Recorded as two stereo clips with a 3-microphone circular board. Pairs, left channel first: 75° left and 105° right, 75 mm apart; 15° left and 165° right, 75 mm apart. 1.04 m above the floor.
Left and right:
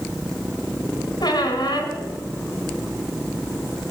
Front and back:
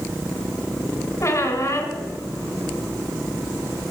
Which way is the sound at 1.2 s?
65° left.